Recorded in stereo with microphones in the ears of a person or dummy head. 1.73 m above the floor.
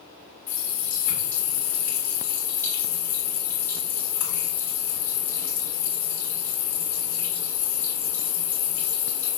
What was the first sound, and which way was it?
A running tap, 10° left (ahead or behind).